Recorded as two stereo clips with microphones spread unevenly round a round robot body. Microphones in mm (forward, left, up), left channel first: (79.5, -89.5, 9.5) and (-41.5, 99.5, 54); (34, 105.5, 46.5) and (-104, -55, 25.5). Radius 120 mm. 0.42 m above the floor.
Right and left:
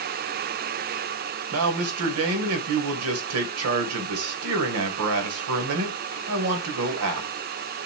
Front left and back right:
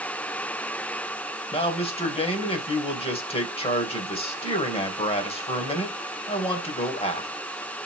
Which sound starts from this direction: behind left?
A man speaking, at 1.5 s.